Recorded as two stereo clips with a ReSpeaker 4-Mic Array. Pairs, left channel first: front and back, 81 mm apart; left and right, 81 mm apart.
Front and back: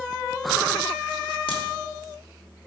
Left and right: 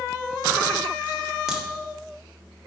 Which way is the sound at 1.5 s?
10° right.